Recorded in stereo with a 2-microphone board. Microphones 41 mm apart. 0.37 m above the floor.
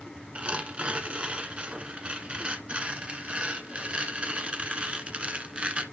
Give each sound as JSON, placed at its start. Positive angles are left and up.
{"t": 0.3, "sound": "tearing paper", "side_deg": -30, "distance_m": 1.1}